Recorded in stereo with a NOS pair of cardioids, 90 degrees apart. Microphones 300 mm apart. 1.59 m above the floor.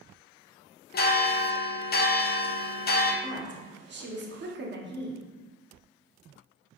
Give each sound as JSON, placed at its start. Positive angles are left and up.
{"t": 0.9, "sound": "a bell", "azimuth_deg": 35, "distance_m": 0.6}
{"t": 3.2, "sound": "a woman speaking", "azimuth_deg": -40, "distance_m": 1.0}